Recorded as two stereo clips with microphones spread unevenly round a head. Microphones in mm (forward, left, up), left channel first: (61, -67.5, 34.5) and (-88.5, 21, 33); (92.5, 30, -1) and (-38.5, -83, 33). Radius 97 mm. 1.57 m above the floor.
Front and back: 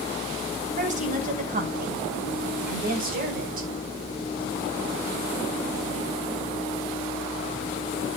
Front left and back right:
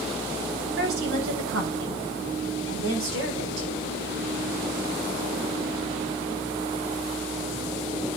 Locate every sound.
0.8 s a woman speaking: 165° right, 8 m; by 3.7 s 170° right, 5.5 m